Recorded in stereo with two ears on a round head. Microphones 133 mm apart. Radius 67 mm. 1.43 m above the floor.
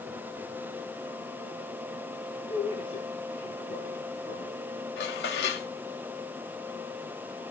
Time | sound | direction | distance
2.5 | a man speaking | 35° left (ahead or behind) | 1.8 m
5.0 | dishes clattering | 80° left | 2 m